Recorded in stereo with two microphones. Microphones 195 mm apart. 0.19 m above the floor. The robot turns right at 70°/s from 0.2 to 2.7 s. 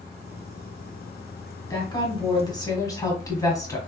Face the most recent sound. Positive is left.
turn(degrees=20)  # may be behind; listen again after turning